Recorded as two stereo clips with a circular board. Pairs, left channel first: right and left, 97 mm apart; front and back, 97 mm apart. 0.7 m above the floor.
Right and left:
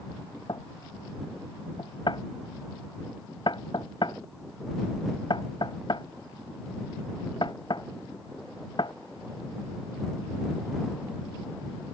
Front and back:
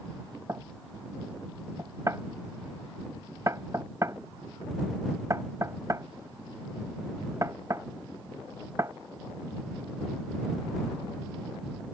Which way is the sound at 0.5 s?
125° right.